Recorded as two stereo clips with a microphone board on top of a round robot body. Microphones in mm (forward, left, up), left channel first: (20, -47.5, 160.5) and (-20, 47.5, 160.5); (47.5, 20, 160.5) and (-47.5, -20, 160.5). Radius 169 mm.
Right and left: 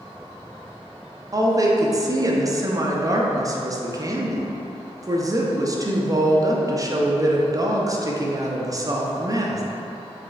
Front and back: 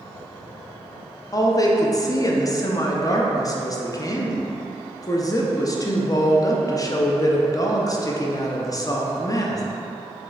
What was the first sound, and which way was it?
A woman speaking, 65° left.